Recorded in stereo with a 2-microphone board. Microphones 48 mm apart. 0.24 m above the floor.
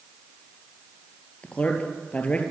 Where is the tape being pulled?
I don't hear tape being pulled.